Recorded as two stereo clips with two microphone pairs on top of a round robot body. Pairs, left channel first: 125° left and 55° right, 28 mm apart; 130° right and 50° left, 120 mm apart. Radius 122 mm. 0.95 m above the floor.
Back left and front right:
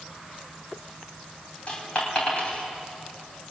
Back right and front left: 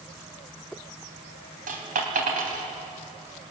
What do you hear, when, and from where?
1.7 s a dropped coin: 70° left, 3 m